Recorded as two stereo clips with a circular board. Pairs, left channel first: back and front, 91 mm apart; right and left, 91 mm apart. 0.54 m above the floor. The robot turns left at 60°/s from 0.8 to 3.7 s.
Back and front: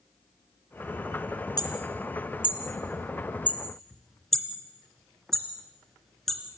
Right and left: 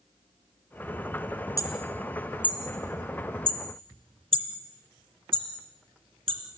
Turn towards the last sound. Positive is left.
turn(degrees=95)